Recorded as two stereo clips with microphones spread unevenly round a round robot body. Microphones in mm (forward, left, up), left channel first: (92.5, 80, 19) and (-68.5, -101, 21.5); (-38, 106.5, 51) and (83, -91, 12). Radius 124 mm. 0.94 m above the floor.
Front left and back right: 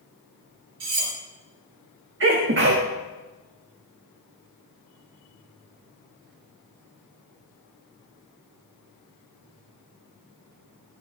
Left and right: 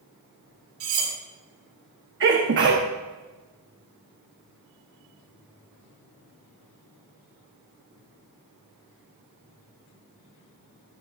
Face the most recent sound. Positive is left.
turn(degrees=-90)